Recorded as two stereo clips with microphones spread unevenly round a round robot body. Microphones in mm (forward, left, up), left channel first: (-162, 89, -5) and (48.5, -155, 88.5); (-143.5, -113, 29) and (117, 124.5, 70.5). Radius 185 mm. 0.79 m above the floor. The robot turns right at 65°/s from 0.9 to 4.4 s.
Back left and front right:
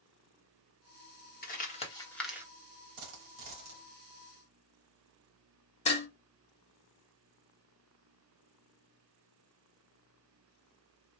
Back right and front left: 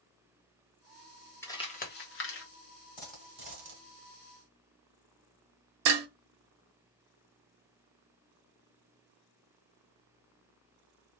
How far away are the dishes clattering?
About 0.8 m.